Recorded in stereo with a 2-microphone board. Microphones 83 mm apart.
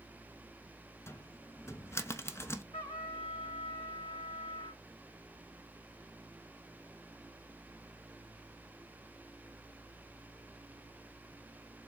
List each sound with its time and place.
1.1 s a cupboard door: 30° left (ahead or behind), 0.5 m
2.7 s a trumpet: 75° left (ahead or behind), 3 m